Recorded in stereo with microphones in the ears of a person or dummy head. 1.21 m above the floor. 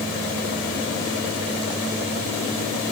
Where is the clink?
I don't hear a clink.